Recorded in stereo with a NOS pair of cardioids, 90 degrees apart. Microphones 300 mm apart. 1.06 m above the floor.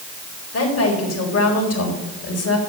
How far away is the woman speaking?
About 4 m.